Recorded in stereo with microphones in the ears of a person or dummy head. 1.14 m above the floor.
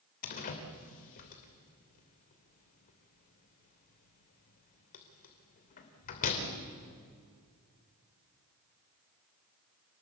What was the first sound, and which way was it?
A door slam, 45° left (ahead or behind).